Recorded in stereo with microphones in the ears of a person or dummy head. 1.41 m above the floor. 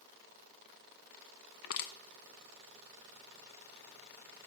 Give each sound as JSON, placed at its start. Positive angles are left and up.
{"t": 1.6, "sound": "crushing", "side_deg": 60, "distance_m": 0.9}